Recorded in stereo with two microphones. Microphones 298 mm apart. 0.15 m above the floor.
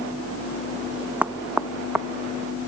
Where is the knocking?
5° right (ahead or behind).